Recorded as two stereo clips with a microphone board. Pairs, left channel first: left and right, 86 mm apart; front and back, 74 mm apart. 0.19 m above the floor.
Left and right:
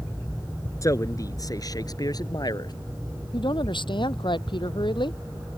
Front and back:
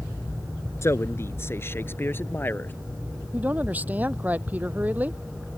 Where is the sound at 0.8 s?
45° left; by 2.7 s 60° left.